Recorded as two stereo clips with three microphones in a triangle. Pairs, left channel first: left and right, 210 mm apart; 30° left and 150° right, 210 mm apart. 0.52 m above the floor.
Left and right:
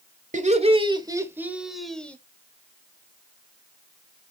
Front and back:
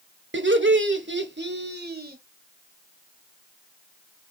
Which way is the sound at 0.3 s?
140° right.